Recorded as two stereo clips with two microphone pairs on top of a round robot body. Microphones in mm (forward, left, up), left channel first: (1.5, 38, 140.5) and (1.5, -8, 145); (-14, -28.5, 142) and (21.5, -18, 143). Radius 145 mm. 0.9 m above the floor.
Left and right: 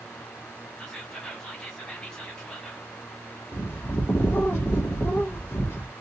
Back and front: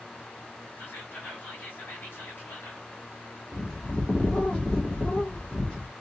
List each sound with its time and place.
0.8 s whispering: 165° left, 2 m
3.5 s a bird: 125° left, 1.6 m